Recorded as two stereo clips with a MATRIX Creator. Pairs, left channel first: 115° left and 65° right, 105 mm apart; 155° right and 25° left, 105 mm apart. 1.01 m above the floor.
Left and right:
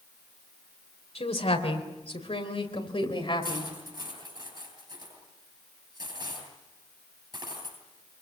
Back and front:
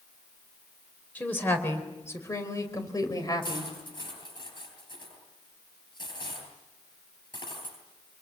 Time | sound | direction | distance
1.1 | a woman speaking | 130° left | 4 m
3.4 | cutlery clinking | 115° right | 10 m